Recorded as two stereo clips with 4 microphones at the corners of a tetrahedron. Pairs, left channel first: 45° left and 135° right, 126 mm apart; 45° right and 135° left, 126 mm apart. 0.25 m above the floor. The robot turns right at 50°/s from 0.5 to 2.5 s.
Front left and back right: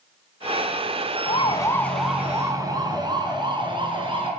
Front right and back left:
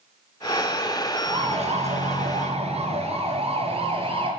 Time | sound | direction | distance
1.3 | a siren | 85° left | 3.5 m